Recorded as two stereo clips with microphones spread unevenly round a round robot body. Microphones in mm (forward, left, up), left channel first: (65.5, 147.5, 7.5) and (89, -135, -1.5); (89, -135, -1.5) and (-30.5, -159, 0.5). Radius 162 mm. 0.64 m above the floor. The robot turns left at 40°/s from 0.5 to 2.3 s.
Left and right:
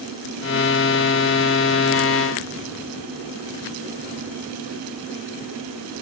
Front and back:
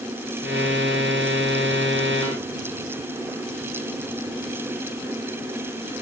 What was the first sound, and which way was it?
Only background noise.